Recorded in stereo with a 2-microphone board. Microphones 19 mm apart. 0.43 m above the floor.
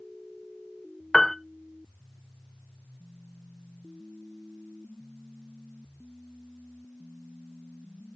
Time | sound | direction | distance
1.1 | a piano | 25° left (ahead or behind) | 0.7 m